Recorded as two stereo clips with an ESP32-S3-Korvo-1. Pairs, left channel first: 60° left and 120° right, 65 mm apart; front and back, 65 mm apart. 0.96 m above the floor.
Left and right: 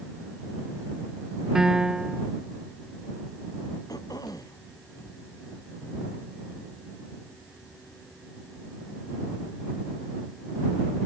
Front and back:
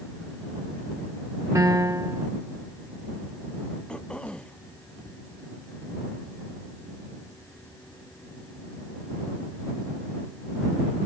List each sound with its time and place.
1.6 s a piano: 160° left
3.9 s throat clearing: 75° left